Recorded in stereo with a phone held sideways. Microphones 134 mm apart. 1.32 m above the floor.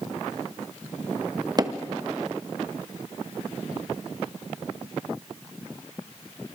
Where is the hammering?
30° right (ahead or behind), 1.1 m.